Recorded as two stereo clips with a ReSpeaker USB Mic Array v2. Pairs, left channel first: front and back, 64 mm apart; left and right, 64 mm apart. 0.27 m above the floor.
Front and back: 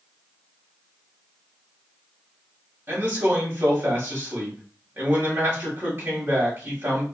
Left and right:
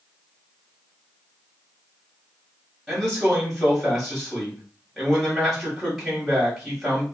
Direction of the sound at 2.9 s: Straight behind.